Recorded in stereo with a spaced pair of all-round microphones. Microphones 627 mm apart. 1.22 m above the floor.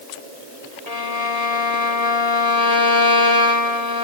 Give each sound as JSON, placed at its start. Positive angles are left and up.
{"t": 0.9, "sound": "a violin", "side_deg": 75, "distance_m": 2.0}